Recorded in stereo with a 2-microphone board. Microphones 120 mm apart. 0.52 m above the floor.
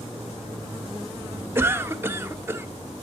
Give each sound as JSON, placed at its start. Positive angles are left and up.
{"t": 1.6, "sound": "a cough", "side_deg": -20, "distance_m": 0.8}